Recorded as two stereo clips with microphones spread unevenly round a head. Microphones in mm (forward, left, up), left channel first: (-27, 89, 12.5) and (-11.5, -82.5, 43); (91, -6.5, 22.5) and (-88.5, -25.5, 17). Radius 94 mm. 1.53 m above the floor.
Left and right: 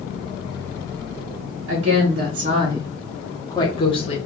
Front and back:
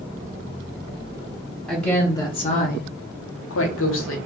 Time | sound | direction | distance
1.7 | a woman speaking | 85° right | 0.8 m